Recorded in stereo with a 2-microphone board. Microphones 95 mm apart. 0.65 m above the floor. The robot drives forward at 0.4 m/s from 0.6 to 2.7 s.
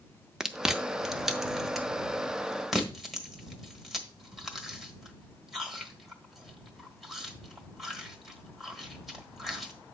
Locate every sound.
0.4 s chewing: 5° right (ahead or behind), 0.5 m; by 9.7 s centre (ahead or behind), 1.4 m